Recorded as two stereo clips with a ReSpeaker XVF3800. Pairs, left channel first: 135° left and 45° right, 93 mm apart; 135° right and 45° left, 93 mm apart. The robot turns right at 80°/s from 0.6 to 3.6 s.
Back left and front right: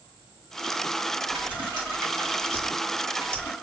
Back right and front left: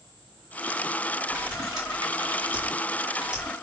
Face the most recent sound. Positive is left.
turn(degrees=145)